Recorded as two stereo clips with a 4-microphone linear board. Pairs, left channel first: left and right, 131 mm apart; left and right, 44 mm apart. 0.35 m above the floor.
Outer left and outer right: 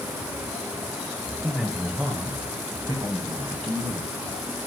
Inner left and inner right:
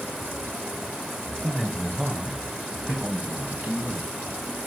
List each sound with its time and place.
1.4 s a man speaking: 5° left (ahead or behind), 1.2 m; by 4.1 s 50° right (ahead or behind), 2.5 m